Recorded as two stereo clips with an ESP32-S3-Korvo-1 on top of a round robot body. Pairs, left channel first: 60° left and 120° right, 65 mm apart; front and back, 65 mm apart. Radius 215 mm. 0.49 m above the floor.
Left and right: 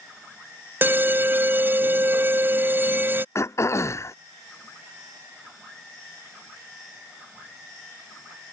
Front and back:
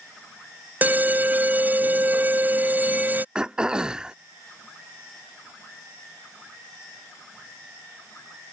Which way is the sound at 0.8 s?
145° right.